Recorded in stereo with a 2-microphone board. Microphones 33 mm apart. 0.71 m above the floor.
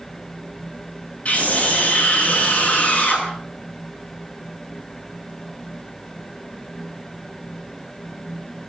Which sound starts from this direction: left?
A scream, at 1.2 s.